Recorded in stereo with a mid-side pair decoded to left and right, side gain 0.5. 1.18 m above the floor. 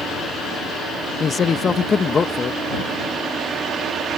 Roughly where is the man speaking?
Ahead left.